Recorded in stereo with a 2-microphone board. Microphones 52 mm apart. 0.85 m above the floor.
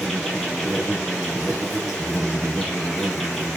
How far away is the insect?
About 2.5 m.